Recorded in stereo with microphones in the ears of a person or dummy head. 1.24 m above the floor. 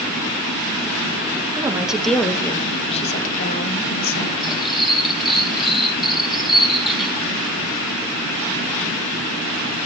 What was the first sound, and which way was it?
A woman speaking, 15° right (ahead or behind).